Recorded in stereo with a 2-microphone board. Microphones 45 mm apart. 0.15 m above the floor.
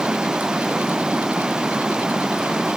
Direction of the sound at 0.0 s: 15° right (ahead or behind).